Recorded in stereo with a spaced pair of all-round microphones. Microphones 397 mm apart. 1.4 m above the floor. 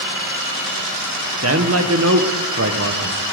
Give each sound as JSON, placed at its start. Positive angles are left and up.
{"t": 1.4, "sound": "a man speaking", "side_deg": -35, "distance_m": 1.0}